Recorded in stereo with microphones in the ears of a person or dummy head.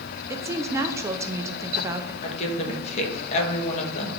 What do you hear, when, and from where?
0.3 s a woman speaking: 15° right (ahead or behind), 0.6 m
2.2 s a woman speaking: 35° left (ahead or behind), 1.5 m